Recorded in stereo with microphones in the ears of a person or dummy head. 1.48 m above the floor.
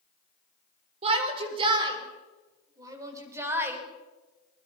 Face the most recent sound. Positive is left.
turn(degrees=-15)  # may be behind; listen again after turning